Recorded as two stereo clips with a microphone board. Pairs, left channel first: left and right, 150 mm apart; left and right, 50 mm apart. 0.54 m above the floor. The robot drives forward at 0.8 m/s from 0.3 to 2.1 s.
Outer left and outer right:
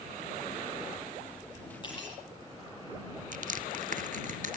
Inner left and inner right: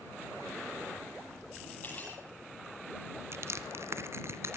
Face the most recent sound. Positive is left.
turn(degrees=-60)  # may be behind; listen again after turning